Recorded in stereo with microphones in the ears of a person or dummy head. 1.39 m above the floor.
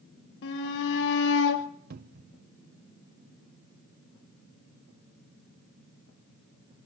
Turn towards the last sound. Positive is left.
turn(degrees=-45)  # may be behind; listen again after turning